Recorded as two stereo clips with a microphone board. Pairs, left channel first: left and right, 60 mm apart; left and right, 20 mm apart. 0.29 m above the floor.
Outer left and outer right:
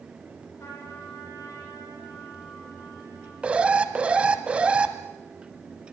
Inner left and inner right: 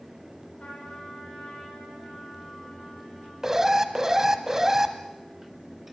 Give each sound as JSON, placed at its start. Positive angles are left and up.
{"t": 0.6, "sound": "a trumpet", "side_deg": 50, "distance_m": 9.5}
{"t": 3.4, "sound": "an alarm", "side_deg": -20, "distance_m": 1.5}